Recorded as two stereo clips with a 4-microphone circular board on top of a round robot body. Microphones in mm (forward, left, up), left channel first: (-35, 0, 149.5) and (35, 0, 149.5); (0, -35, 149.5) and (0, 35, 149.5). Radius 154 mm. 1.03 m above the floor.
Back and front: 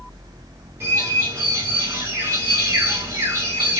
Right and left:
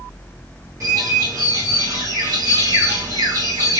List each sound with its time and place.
0.8 s a bird: 45° left, 1.8 m